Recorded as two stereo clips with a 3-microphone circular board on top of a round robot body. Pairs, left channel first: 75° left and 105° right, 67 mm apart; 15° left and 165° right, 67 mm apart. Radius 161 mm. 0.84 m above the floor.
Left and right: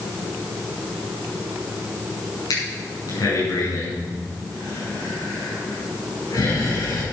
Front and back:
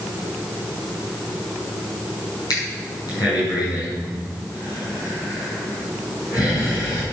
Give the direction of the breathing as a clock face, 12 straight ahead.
11 o'clock.